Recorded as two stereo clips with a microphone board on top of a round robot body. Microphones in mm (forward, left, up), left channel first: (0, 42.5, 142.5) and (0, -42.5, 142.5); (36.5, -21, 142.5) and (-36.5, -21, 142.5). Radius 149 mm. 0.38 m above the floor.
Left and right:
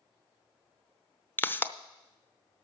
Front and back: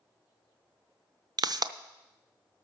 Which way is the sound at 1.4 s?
155° left.